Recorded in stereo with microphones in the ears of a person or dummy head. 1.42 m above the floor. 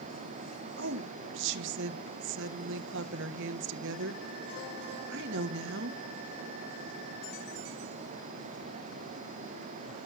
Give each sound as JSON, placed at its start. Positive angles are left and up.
{"t": 0.8, "sound": "a woman speaking", "side_deg": -70, "distance_m": 1.4}